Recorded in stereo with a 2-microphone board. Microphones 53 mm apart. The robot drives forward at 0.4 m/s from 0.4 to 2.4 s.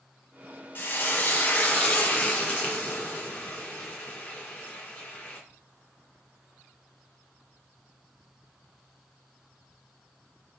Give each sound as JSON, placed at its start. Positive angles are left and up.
{"t": 0.8, "sound": "frying", "side_deg": 40, "distance_m": 1.1}